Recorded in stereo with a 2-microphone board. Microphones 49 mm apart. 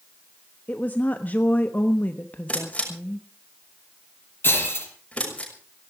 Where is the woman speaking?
35° left (ahead or behind), 1.1 m.